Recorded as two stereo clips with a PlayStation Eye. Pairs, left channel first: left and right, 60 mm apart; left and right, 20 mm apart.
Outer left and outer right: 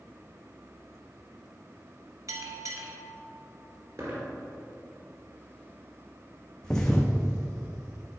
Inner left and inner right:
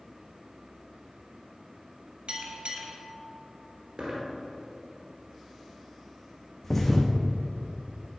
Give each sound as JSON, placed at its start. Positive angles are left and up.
{"t": 2.3, "sound": "a bell", "side_deg": -65, "distance_m": 1.1}
{"t": 4.0, "sound": "a dropped coin", "side_deg": -60, "distance_m": 2.5}
{"t": 6.6, "sound": "a thud", "side_deg": 10, "distance_m": 1.2}